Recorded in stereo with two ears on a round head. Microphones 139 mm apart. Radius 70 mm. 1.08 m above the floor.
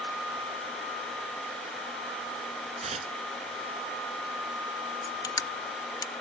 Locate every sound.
2.8 s tearing paper: 45° right (ahead or behind)
5.0 s crushing: 25° left (ahead or behind)